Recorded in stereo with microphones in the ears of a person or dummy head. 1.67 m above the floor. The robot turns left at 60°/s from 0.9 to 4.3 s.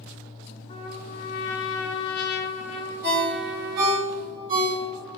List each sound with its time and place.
0.7 s a trumpet: 145° left, 0.5 m; by 4.0 s 45° right, 0.5 m
3.0 s a ringtone: 50° right (ahead or behind), 1.3 m; by 5.2 s 25° right (ahead or behind), 1.3 m